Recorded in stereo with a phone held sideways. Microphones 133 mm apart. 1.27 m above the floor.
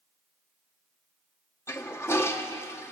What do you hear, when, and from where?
1.7 s a toilet flushing: 20° left (ahead or behind), 1.7 m